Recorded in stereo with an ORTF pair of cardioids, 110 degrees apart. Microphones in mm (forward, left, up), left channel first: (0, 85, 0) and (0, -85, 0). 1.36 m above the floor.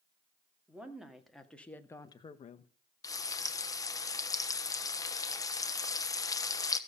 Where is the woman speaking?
5° right, 2.5 m; by 2.7 s 60° left, 1.0 m.